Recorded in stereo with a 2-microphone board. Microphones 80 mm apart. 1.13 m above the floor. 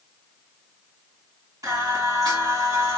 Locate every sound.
1.6 s singing: 45° right (ahead or behind), 1.9 m